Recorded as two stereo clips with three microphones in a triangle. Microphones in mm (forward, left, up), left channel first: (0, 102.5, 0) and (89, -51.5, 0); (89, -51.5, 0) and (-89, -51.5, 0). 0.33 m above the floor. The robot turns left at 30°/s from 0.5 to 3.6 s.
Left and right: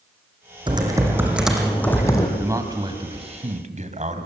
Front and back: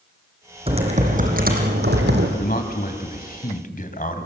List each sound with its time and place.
0.7 s typing on a keyboard: 120° right, 4 m; by 2.3 s 170° right, 4 m
2.4 s a man speaking: 15° left, 2.5 m; by 4.3 s 25° right, 2.5 m